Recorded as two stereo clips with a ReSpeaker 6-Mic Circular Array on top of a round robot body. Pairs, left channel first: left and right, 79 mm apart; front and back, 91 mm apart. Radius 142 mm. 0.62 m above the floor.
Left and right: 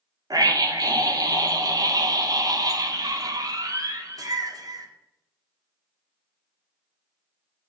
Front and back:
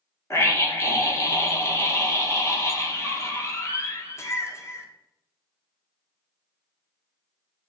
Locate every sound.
0.3 s a scream: 55° right, 2.5 m